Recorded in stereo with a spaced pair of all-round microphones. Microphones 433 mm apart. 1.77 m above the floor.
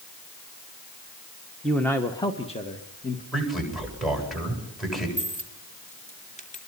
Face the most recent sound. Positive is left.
turn(degrees=15)  # may be behind; listen again after turning